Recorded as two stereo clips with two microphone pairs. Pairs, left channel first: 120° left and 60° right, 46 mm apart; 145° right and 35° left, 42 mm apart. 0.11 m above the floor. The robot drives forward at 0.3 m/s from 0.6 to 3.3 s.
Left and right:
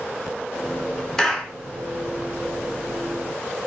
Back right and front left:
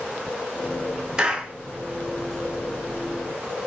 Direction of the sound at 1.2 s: 55° left.